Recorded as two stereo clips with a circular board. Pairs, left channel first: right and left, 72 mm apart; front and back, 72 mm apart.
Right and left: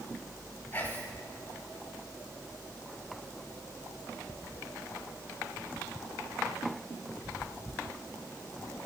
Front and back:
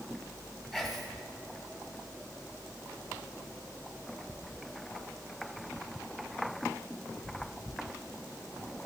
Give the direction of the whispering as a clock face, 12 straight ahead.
3 o'clock.